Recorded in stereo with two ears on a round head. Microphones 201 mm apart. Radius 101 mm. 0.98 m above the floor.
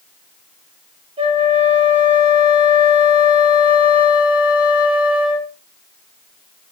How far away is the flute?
About 1.7 m.